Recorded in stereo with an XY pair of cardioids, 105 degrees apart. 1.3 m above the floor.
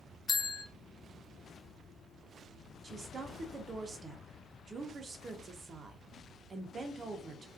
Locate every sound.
0.3 s a bell: 30° left, 0.7 m
2.8 s a woman speaking: 35° right, 0.7 m